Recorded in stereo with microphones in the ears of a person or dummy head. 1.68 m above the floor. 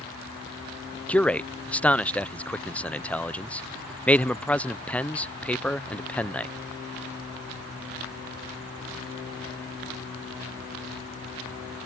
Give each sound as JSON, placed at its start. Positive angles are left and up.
{"t": 1.1, "sound": "a man speaking", "side_deg": 5}